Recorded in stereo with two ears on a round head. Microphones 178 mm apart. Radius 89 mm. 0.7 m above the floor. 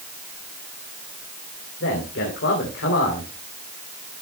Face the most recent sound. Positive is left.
turn(degrees=65)  # may be behind; listen again after turning